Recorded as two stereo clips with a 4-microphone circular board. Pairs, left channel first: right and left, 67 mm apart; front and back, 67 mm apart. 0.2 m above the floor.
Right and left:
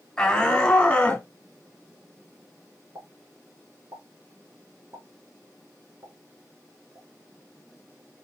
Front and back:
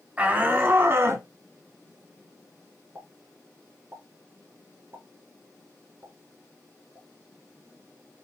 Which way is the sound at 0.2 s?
150° right.